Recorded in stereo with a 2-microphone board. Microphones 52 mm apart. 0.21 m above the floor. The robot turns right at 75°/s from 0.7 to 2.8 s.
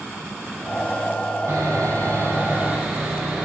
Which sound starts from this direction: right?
Sawing, at 1.5 s.